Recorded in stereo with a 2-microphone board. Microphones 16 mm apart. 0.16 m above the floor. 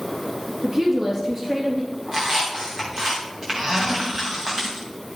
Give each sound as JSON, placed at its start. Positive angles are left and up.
{"t": 0.6, "sound": "a woman speaking", "side_deg": -35, "distance_m": 3.0}
{"t": 2.1, "sound": "a squeak", "side_deg": -60, "distance_m": 5.0}